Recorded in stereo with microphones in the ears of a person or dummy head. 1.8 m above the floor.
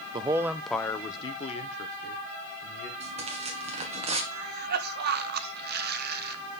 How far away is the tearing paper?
About 1.5 m.